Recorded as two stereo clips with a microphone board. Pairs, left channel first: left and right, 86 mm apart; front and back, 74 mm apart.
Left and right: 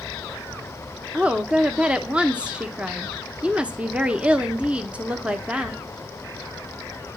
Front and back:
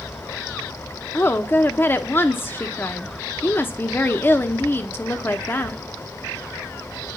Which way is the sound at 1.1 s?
25° right.